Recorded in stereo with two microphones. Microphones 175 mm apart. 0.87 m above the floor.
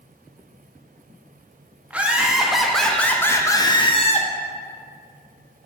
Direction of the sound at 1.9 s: 10° right (ahead or behind).